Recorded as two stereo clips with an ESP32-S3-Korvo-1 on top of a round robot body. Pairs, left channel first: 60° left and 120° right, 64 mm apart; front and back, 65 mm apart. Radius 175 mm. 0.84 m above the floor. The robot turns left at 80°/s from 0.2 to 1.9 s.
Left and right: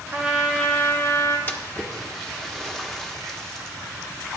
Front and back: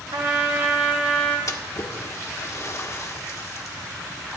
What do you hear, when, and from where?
0.1 s a trumpet: 175° left, 2 m; by 1.4 s 80° left, 2 m
1.5 s a splash: 15° left, 1.4 m; by 3.8 s 20° right, 1.4 m